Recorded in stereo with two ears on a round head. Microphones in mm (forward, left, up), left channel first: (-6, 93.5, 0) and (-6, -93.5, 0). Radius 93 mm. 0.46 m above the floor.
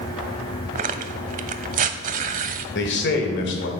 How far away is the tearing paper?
About 0.6 m.